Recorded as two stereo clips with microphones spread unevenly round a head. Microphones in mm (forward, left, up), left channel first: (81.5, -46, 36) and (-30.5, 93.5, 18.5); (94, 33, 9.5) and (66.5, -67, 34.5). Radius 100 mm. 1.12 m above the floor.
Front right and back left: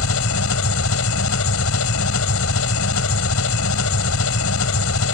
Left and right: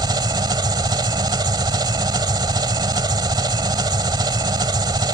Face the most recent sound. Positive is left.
turn(degrees=-60)